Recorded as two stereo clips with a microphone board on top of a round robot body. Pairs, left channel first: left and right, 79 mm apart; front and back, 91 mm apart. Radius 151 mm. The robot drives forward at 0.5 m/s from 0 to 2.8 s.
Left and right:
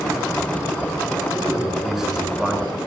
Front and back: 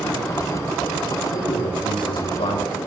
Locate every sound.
1.3 s a man speaking: 5° right, 6.5 m